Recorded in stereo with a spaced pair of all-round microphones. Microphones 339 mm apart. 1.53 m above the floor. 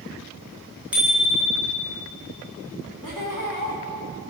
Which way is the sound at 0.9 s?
5° right (ahead or behind).